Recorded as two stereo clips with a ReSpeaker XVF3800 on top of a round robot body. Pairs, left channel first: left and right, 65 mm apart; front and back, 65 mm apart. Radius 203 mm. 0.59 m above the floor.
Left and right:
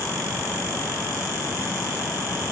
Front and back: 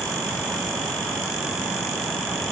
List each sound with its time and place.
Only background noise.